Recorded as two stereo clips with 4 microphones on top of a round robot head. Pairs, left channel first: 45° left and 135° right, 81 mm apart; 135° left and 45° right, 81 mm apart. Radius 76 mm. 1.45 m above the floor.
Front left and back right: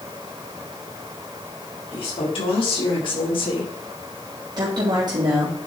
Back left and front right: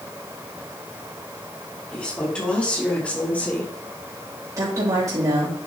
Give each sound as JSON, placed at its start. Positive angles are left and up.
{"t": 1.9, "sound": "a woman speaking", "azimuth_deg": 55, "distance_m": 4.5}
{"t": 4.6, "sound": "a woman speaking", "azimuth_deg": -95, "distance_m": 3.0}